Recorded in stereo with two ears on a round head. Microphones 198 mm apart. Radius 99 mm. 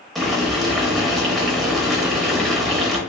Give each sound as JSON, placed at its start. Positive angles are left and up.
{"t": 0.1, "sound": "boiling", "side_deg": 0, "distance_m": 0.7}